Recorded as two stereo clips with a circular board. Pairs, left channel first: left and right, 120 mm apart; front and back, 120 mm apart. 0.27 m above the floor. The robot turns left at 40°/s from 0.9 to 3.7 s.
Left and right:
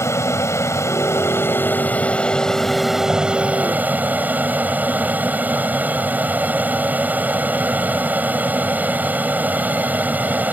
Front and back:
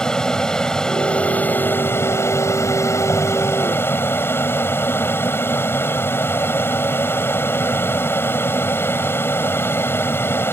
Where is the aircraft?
75° left; by 10.5 s 35° right.